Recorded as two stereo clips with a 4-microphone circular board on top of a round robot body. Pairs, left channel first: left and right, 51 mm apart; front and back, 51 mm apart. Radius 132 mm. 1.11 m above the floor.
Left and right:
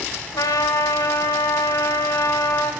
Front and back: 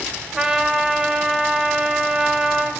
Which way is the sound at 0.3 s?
100° left.